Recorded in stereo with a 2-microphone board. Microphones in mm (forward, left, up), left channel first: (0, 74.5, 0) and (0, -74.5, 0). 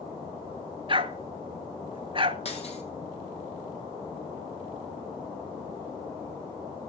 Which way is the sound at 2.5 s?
45° left (ahead or behind).